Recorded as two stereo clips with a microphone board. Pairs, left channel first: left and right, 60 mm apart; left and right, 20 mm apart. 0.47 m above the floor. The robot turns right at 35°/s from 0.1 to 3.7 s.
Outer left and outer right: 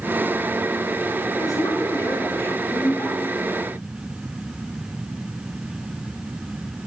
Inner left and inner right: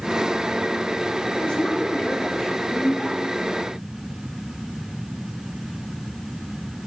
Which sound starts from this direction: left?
A woman speaking, at 1.4 s.